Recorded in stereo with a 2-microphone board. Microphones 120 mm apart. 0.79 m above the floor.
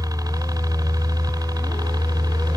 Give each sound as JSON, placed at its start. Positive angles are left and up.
{"t": 0.0, "sound": "a helicopter", "side_deg": -30}